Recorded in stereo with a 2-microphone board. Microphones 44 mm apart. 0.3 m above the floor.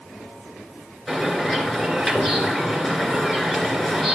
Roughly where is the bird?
Centre.